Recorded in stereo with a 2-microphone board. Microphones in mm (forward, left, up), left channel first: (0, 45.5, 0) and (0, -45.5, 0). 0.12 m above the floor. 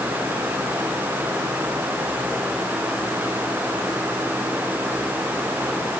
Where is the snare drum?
No snare drum in this recording.